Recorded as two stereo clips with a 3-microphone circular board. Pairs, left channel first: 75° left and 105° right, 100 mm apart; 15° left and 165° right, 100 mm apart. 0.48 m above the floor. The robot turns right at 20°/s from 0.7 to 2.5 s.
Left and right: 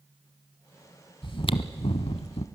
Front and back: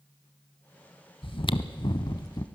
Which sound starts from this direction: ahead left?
Chewing, at 1.2 s.